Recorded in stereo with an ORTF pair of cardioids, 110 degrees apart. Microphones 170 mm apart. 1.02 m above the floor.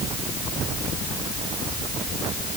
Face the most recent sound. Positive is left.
No sound to turn to.